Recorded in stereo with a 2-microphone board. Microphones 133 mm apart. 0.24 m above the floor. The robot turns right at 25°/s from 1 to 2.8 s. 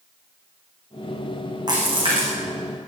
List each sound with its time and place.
1.7 s a splash: 35° right (ahead or behind), 8.5 m; by 2.3 s 50° right (ahead or behind), 8.5 m